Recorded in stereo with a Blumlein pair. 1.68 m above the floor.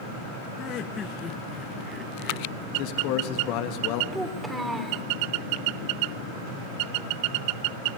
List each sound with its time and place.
0.6 s laughter: 35° left, 1.9 m; by 2.7 s 20° right, 2.5 m
2.8 s a man speaking: 45° left, 3 m
4.1 s a child speaking: 5° right, 4 m